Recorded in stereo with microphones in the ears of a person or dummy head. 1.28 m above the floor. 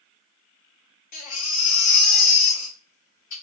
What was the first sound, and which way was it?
A baby crying, 50° left (ahead or behind).